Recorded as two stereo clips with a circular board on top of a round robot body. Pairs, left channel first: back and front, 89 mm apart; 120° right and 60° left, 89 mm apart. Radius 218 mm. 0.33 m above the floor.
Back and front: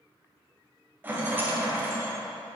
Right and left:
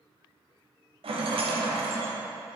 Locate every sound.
1.0 s a rattle: 70° left, 1.3 m